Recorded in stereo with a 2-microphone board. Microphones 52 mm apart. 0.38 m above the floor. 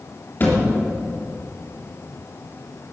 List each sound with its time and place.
0.4 s a thud: 45° left (ahead or behind), 3 m